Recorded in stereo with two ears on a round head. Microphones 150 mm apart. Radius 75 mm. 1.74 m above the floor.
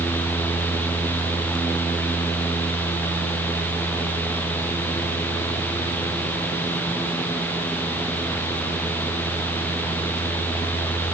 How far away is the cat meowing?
No cat meowing in this recording.